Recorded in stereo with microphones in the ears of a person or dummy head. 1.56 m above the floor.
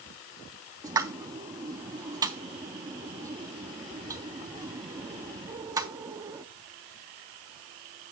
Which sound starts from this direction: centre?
A pop, at 0.8 s.